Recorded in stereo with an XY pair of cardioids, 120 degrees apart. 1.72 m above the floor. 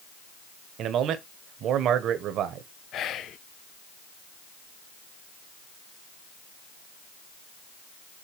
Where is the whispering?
60° left, 0.8 m.